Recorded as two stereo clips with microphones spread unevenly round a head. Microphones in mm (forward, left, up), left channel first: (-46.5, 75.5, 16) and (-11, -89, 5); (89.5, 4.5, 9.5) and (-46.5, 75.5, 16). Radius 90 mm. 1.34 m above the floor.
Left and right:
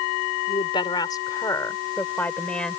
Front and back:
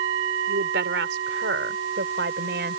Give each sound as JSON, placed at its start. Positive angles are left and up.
{"t": 0.5, "sound": "a woman speaking", "azimuth_deg": 160}